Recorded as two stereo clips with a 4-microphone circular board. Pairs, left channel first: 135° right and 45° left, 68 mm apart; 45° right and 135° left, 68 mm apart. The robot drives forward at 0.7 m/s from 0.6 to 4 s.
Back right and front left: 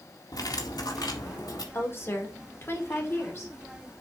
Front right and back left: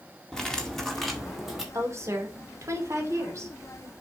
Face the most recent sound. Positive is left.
turn(degrees=180)